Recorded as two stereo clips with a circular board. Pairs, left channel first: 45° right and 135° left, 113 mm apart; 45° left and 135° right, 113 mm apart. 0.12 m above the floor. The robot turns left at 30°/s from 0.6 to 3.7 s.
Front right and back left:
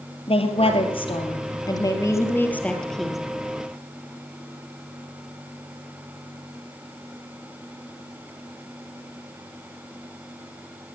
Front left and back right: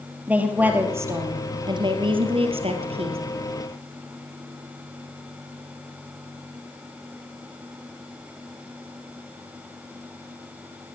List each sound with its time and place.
0.3 s a woman speaking: 60° right, 3 m; by 3.2 s 140° right, 3 m